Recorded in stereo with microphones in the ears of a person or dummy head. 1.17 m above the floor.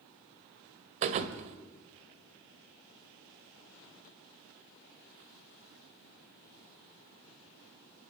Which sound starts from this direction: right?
A thud, at 1.0 s.